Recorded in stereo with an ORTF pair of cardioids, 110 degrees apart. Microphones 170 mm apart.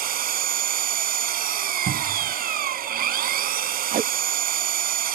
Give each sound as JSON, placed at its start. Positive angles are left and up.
{"t": 0.0, "sound": "an engine running", "azimuth_deg": -60}
{"t": 1.9, "sound": "a cupboard door", "azimuth_deg": -50}
{"t": 3.9, "sound": "tape being pulled", "azimuth_deg": -50}